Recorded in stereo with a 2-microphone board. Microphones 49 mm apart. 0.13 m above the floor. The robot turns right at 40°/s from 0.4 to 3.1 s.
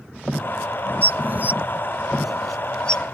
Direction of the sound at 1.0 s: 50° right (ahead or behind).